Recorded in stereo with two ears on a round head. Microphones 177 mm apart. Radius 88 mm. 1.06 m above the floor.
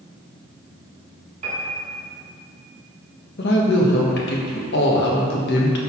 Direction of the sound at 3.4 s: 60° left (ahead or behind).